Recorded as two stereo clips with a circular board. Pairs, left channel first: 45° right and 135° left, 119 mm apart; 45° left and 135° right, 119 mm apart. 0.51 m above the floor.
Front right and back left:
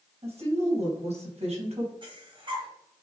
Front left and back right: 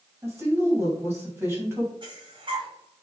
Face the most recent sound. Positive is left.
turn(degrees=180)